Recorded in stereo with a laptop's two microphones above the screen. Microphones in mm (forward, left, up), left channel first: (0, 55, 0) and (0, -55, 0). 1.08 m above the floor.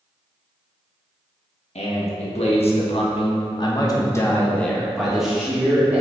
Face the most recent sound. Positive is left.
turn(degrees=-15)  # may be behind; listen again after turning